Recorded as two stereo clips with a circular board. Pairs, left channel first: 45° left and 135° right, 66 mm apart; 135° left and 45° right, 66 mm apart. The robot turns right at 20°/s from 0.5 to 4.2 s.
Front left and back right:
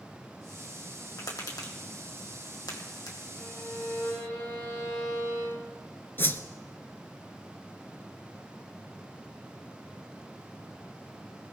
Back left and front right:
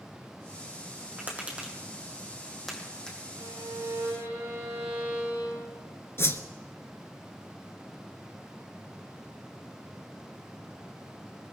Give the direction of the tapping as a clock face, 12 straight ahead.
11 o'clock.